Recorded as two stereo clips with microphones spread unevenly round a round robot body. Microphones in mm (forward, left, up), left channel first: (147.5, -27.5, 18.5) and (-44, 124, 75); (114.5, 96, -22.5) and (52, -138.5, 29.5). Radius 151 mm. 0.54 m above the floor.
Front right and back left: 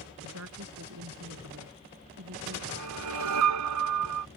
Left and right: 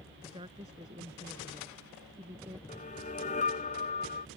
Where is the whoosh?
145° left.